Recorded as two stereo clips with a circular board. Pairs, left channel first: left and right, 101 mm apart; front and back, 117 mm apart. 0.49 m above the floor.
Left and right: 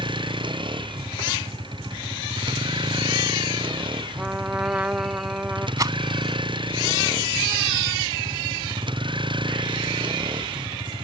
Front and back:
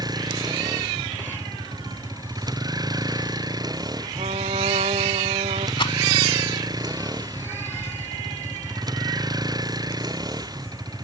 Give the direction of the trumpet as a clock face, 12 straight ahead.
5 o'clock.